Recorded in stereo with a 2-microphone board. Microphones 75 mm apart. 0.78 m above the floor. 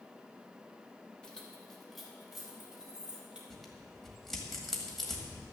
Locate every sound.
1.2 s keys jangling: 10° left (ahead or behind), 2.5 m; by 3.4 s 10° right (ahead or behind), 3.5 m
3.5 s tearing paper: 5° left (ahead or behind), 2 m